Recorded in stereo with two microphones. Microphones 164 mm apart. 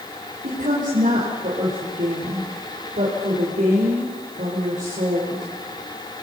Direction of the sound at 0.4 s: 60° right (ahead or behind).